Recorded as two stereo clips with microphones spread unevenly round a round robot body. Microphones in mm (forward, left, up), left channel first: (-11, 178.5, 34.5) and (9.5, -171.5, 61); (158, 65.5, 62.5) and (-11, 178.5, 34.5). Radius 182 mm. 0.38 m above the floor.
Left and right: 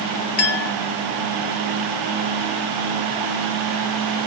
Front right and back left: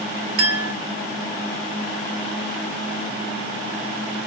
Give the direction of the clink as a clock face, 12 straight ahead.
7 o'clock.